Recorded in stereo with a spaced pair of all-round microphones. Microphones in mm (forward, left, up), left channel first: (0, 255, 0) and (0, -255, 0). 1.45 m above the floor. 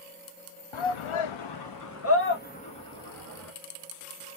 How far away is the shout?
About 0.6 m.